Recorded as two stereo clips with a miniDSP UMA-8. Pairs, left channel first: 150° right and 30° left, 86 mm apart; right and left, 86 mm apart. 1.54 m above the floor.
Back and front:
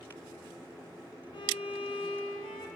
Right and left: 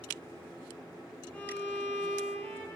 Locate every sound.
1.3 s a violin: 165° right, 1.0 m